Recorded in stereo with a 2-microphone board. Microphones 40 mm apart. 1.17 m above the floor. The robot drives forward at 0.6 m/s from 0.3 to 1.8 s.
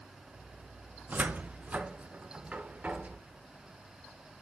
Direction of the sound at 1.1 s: 45° right (ahead or behind).